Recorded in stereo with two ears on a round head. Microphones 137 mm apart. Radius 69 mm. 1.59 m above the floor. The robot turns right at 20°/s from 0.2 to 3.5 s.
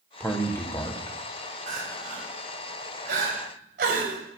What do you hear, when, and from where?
0.2 s a man speaking: 10° left (ahead or behind), 1.4 m; by 1.2 s 30° left (ahead or behind), 1.4 m
1.7 s crying: 55° right (ahead or behind), 3 m; by 4.2 s 65° right (ahead or behind), 3 m